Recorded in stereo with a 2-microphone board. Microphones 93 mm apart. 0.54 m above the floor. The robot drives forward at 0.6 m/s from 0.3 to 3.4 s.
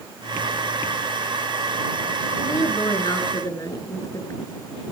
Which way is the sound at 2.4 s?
35° left (ahead or behind).